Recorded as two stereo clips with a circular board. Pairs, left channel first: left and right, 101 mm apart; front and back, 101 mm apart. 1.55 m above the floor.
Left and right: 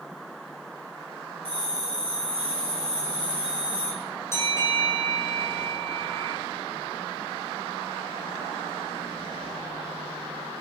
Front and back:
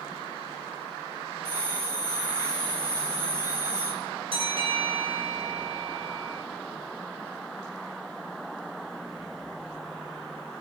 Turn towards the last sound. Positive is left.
turn(degrees=155)